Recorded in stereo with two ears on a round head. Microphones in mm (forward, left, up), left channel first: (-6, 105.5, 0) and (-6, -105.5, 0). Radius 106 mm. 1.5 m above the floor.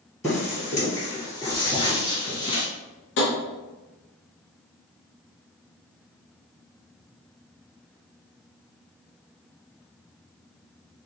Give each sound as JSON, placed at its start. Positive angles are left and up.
{"t": 0.2, "sound": "footsteps", "side_deg": 10, "distance_m": 1.8}
{"t": 3.2, "sound": "tapping", "side_deg": 50, "distance_m": 0.9}